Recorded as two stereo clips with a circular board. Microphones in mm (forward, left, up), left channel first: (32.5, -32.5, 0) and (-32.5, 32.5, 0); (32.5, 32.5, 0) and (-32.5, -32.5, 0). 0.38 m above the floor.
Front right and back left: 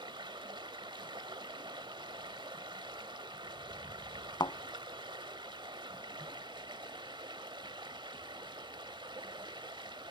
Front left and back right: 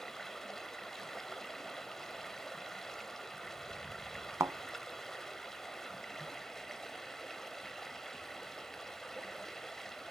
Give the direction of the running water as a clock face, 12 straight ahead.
8 o'clock.